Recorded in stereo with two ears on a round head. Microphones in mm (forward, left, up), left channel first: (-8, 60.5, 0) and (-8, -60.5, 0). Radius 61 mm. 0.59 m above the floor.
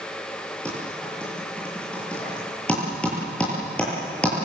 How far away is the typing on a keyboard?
About 9 m.